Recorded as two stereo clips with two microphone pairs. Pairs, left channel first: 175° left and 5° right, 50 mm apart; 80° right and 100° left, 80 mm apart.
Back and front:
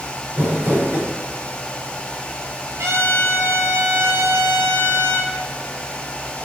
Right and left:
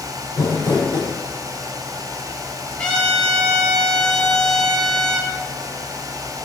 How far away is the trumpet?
About 2 m.